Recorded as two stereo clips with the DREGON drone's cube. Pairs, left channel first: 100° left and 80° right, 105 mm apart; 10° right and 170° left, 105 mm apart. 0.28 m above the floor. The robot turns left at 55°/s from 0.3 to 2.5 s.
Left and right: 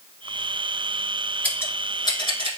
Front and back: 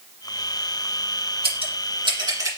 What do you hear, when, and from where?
1.4 s scissors: 175° left, 1.5 m; by 2.6 s 115° left, 1.5 m